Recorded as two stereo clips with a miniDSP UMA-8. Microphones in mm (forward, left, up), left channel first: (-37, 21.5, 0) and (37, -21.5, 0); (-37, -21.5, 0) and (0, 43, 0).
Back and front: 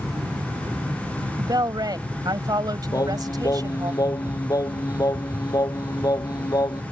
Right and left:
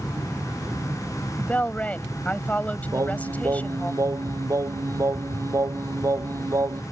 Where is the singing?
105° left.